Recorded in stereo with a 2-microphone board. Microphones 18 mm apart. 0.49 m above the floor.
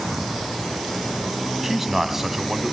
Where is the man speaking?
10° right (ahead or behind), 3 m.